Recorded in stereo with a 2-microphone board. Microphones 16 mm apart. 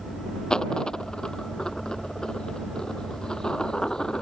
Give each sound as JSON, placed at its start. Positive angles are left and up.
{"t": 0.5, "sound": "a dropped coin", "side_deg": 40}